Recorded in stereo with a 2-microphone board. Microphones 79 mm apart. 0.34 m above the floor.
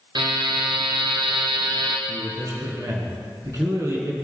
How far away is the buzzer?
About 2 m.